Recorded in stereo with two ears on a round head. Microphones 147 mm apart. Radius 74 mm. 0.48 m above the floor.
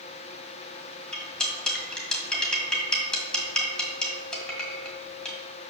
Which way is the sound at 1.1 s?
5° left (ahead or behind).